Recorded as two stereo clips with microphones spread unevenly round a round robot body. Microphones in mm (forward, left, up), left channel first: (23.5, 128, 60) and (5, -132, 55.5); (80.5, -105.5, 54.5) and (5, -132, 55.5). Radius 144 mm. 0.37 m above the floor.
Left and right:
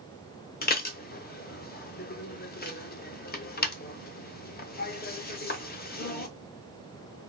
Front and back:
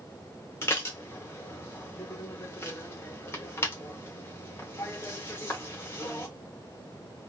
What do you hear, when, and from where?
0.6 s dishes clattering: 55° left, 0.7 m